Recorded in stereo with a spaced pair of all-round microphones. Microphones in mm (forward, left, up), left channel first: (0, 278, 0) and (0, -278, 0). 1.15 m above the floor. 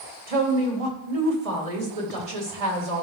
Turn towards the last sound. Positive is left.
turn(degrees=-70)  # may be behind; listen again after turning